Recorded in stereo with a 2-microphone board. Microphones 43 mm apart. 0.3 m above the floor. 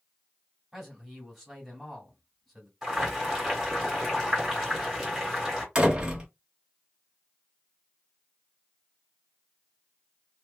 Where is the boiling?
Centre (ahead or behind), 1.7 m.